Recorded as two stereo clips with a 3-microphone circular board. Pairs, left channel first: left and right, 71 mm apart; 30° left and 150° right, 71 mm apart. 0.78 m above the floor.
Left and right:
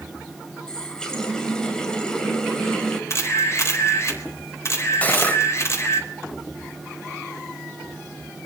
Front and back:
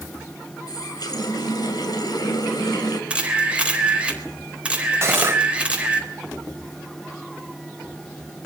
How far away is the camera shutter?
About 4 m.